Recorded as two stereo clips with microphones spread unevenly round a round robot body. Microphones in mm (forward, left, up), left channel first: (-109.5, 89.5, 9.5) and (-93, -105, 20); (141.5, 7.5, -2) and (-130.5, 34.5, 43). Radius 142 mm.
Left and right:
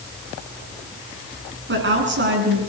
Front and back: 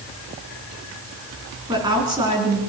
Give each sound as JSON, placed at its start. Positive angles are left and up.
{"t": 1.7, "sound": "a woman speaking", "azimuth_deg": -110, "distance_m": 7.0}